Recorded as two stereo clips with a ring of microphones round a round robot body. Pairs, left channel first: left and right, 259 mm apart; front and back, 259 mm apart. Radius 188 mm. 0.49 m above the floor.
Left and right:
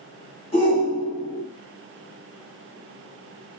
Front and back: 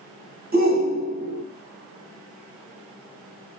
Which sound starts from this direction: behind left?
A shout, at 0.5 s.